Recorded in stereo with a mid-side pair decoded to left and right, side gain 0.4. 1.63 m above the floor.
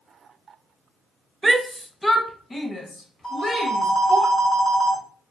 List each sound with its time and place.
1.4 s a shout: 25° right, 0.5 m; by 4.2 s 40° left, 2 m
3.2 s a phone ringing: 35° left, 1.9 m